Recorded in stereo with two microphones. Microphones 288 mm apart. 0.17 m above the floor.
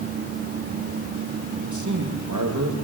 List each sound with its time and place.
1.6 s a man speaking: 80° right, 8 m